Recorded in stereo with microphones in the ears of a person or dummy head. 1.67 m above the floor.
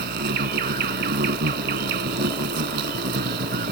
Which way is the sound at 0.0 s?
65° right (ahead or behind).